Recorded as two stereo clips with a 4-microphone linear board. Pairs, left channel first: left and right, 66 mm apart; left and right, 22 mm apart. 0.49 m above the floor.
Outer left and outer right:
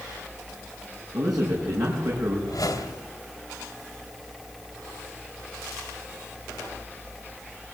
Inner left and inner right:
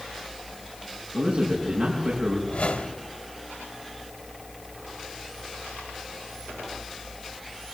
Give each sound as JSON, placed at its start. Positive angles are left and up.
{"t": 1.1, "sound": "a man speaking", "side_deg": -75, "distance_m": 5.5}
{"t": 2.5, "sound": "a whoosh", "side_deg": 70, "distance_m": 1.8}